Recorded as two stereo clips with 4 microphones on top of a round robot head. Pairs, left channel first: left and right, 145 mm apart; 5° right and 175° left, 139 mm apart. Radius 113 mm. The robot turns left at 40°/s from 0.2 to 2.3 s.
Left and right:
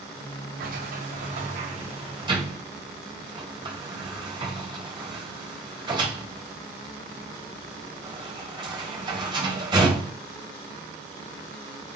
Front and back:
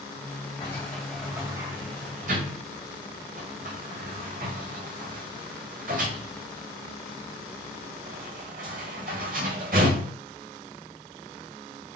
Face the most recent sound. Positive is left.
turn(degrees=-140)